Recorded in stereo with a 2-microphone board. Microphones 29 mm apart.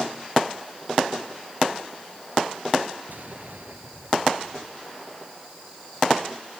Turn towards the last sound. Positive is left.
turn(degrees=-75)  # may be behind; listen again after turning